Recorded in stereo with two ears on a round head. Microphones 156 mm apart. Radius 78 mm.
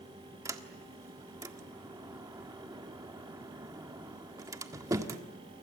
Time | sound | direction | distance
0.5 | a sliding door | 20° right (ahead or behind) | 1.5 m